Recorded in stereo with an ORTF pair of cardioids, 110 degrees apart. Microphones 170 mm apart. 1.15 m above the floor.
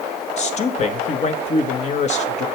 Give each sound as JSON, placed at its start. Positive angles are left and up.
{"t": 0.4, "sound": "a man speaking", "azimuth_deg": 40, "distance_m": 1.0}